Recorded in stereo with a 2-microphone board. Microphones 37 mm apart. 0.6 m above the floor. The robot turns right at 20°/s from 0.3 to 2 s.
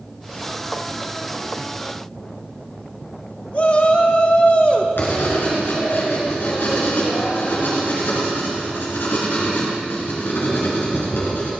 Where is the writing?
80° left, 3 m.